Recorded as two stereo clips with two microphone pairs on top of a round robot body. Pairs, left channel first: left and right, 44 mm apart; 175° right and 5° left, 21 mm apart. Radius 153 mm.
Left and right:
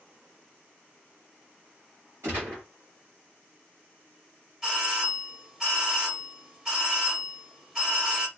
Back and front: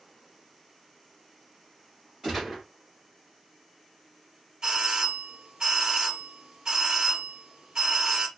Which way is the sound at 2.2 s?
80° right.